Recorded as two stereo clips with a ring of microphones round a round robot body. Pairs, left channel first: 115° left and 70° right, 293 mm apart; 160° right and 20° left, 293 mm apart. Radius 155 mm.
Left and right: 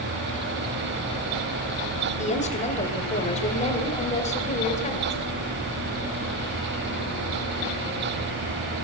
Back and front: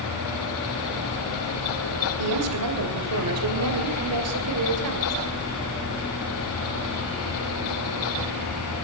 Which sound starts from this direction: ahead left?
A woman speaking, at 2.2 s.